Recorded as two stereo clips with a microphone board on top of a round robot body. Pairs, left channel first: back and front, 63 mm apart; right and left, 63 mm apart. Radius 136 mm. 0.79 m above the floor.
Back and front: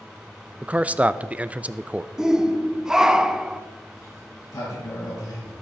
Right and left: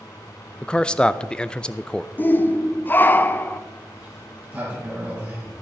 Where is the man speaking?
35° right, 0.6 m.